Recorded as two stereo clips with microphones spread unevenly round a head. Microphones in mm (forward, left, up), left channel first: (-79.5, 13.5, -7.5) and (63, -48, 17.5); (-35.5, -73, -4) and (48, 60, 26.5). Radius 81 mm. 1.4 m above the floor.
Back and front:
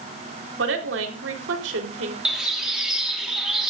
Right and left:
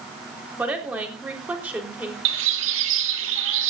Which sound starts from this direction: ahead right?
A woman speaking, at 0.6 s.